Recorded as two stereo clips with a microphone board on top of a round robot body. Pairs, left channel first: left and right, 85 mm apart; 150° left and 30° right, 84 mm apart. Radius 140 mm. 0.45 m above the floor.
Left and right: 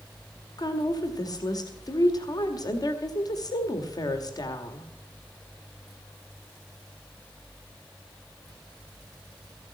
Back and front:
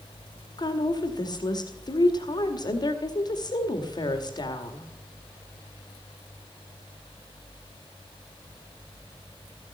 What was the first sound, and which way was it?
A woman speaking, 125° left.